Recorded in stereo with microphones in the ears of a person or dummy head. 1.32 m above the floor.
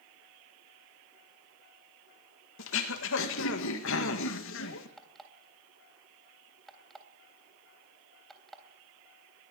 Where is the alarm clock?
Centre (ahead or behind), 3 m.